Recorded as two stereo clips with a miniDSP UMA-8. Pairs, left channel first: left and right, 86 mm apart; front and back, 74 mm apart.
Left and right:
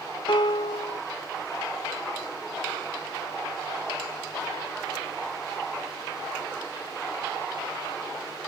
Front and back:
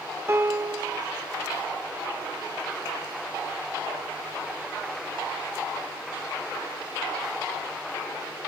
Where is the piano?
120° left, 1.2 m.